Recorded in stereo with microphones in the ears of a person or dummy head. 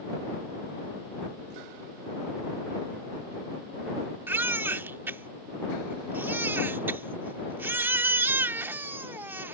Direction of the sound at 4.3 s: 15° right (ahead or behind).